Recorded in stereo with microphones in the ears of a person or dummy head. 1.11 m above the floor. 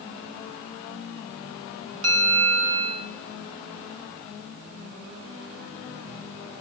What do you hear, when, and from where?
2.0 s a bell: 80° right, 5 m